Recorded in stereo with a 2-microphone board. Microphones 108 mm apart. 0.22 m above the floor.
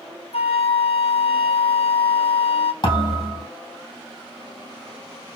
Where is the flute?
70° left (ahead or behind), 0.8 m.